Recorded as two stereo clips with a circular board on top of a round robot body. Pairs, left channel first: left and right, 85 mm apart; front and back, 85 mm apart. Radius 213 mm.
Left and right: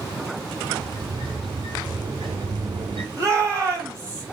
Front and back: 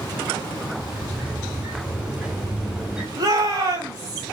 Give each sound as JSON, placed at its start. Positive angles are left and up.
{"t": 0.8, "sound": "a sliding door", "azimuth_deg": -100, "distance_m": 2.0}
{"t": 3.2, "sound": "a shout", "azimuth_deg": -145, "distance_m": 5.0}